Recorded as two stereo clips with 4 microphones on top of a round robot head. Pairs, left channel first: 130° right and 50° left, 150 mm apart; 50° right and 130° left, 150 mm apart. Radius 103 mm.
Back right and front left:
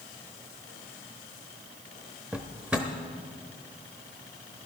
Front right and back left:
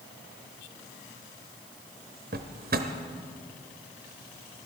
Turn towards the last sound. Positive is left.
turn(degrees=130)